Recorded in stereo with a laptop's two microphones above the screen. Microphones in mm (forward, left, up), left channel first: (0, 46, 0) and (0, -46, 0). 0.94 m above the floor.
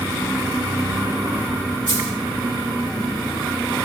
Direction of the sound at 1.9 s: 65° right (ahead or behind).